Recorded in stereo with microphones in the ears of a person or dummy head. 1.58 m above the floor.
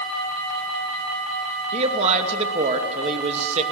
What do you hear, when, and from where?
1.7 s a man speaking: 35° right (ahead or behind), 2.5 m